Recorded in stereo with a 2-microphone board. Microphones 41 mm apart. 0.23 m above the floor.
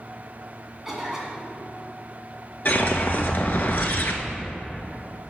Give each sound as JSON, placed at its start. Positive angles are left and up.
{"t": 0.8, "sound": "a cough", "side_deg": -10, "distance_m": 1.9}
{"t": 2.6, "sound": "a whoosh", "side_deg": 50, "distance_m": 0.8}